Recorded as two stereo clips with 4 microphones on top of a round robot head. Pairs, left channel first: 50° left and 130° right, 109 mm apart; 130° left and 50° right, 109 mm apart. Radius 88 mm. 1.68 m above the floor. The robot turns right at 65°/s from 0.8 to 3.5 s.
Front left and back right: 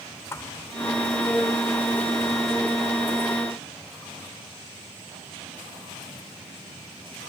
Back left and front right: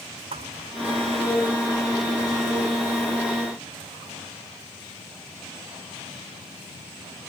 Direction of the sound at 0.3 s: 15° right.